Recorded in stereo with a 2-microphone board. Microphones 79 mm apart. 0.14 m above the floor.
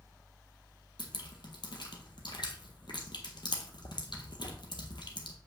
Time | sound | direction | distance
1.0 | dripping | 75° left (ahead or behind) | 1.4 m